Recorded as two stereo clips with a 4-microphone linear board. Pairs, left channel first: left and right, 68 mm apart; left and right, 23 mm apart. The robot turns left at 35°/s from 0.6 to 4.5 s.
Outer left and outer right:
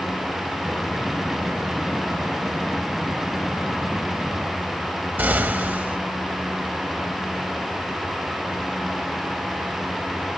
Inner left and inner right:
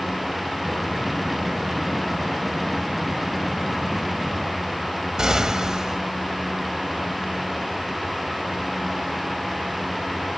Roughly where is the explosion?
Right.